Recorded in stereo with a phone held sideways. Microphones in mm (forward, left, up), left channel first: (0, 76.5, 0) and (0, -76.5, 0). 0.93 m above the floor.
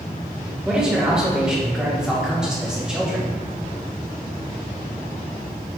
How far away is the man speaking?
About 2.5 m.